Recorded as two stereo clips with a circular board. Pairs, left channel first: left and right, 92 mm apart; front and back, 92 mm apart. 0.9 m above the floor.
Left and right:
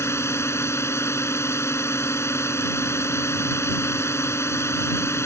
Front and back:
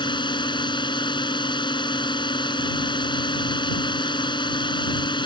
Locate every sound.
0.0 s a drone: 30° left